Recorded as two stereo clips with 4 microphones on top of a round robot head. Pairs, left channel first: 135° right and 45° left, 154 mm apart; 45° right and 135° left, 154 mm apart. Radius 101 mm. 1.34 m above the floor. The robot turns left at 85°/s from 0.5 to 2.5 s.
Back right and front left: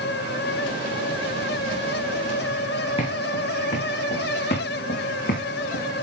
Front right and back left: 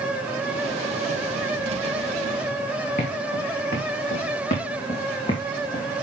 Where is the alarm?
No alarm in this recording.